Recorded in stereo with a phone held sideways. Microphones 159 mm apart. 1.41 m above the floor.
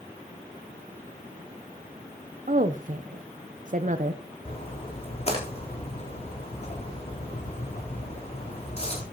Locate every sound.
2.5 s a woman speaking: 55° right (ahead or behind), 0.8 m
4.5 s a splash: 40° left (ahead or behind), 3.5 m